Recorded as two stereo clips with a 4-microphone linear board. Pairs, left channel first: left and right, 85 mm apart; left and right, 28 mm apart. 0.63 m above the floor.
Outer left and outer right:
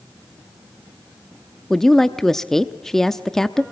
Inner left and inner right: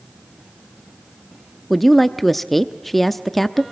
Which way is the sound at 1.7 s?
5° left (ahead or behind).